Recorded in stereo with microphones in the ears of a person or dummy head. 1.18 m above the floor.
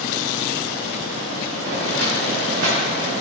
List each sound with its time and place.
1.6 s footsteps: 55° right (ahead or behind), 5 m; by 3.1 s 70° right (ahead or behind), 5.5 m